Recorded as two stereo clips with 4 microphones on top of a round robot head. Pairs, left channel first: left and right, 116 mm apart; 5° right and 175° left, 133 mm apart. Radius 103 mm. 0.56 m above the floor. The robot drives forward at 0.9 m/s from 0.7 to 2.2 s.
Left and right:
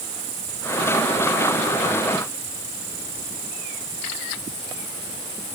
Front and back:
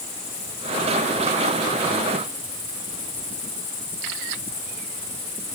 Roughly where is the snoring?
No snoring in this recording.